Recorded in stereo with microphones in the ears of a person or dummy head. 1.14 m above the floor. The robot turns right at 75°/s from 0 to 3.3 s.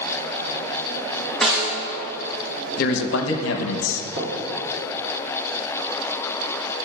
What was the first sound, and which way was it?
A snare drum, 5° left (ahead or behind).